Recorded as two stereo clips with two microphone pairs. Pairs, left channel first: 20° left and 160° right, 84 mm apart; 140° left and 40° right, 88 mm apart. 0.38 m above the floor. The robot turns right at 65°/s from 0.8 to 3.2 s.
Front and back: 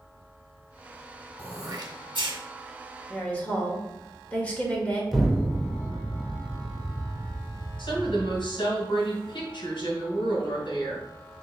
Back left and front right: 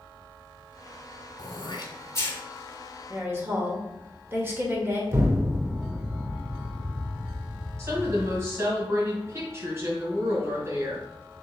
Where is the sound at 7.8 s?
15° left, 2.5 m.